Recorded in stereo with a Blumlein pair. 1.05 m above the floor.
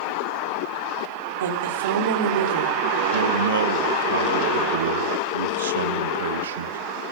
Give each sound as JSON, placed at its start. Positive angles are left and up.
{"t": 1.4, "sound": "a woman speaking", "azimuth_deg": -60, "distance_m": 3.5}
{"t": 3.1, "sound": "a man speaking", "azimuth_deg": -65, "distance_m": 0.9}